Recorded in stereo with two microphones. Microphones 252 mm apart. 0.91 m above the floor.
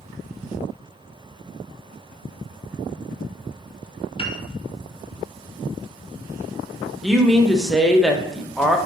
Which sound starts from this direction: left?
A piano, at 4.2 s.